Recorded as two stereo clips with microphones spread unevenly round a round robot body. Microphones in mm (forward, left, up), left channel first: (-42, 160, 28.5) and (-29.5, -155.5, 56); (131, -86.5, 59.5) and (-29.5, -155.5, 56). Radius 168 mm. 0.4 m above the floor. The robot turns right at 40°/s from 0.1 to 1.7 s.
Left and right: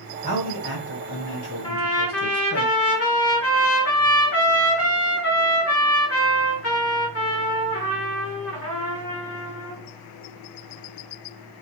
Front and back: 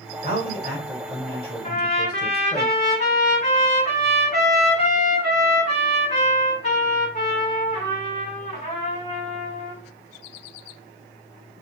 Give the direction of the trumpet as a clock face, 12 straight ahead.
10 o'clock.